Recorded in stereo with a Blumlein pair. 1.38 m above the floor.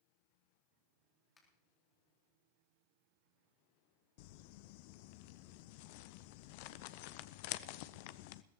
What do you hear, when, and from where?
1.4 s a finger snap: 20° left, 4 m
4.2 s crumpling: 45° left, 0.6 m